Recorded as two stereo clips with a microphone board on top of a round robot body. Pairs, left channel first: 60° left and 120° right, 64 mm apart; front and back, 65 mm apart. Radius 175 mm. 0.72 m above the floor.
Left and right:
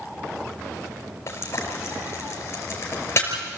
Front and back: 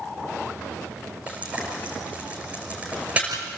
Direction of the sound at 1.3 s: 110° left.